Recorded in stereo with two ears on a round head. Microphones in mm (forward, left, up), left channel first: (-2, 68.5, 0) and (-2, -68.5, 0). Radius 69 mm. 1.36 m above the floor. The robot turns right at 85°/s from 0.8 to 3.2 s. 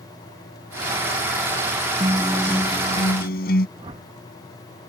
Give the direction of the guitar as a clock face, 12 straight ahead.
1 o'clock.